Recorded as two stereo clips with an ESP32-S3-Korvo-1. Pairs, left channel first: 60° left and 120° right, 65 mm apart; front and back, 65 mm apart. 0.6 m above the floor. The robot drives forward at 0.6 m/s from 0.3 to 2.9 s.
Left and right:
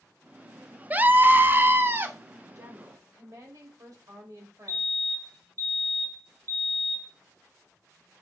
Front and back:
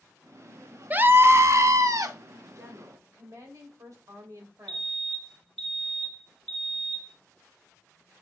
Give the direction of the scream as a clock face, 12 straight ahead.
5 o'clock.